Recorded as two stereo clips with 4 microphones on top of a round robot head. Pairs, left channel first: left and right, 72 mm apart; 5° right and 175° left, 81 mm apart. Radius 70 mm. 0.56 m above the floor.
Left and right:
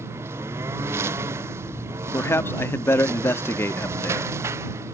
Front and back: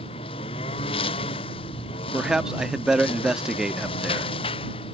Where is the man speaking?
100° left.